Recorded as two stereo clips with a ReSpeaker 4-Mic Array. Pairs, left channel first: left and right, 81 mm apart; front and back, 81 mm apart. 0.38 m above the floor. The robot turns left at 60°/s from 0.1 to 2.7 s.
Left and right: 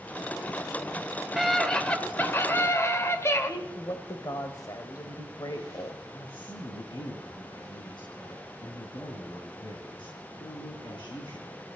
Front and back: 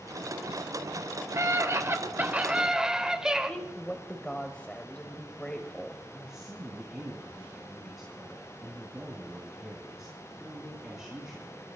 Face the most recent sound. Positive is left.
turn(degrees=95)